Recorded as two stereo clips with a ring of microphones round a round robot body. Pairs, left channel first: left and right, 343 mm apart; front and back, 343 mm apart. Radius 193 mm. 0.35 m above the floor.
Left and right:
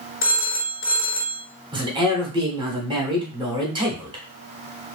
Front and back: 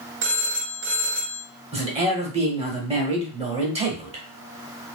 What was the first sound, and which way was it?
A phone ringing, 135° left.